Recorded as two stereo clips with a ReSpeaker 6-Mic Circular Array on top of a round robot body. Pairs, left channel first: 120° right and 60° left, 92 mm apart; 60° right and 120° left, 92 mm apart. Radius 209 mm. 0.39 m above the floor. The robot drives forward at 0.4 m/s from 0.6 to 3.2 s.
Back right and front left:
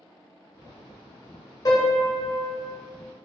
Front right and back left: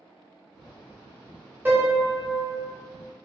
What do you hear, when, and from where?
1.6 s a piano: 170° right, 0.7 m; by 2.7 s 175° right, 1.1 m